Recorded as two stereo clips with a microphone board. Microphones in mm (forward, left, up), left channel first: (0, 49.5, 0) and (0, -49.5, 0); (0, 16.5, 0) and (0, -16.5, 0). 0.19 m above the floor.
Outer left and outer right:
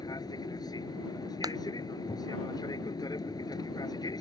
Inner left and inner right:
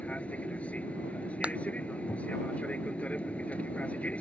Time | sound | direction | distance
0.0 | an aircraft | 40° left (ahead or behind) | ?
1.4 | a clap | 40° right (ahead or behind) | ?